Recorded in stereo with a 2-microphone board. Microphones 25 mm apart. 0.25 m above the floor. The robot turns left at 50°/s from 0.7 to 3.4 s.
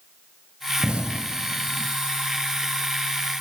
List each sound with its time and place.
0.8 s an explosion: 45° right (ahead or behind), 0.8 m; by 1.9 s 80° right, 0.8 m